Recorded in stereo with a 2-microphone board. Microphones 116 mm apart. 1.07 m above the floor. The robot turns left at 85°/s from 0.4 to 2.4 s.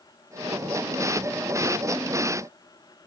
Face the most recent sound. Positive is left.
No sound to turn to.